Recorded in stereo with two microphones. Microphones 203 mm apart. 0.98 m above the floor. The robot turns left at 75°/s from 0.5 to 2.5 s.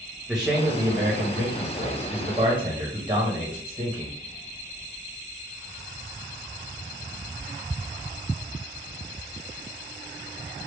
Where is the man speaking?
5° right, 1.1 m; by 4.1 s 155° right, 1.1 m.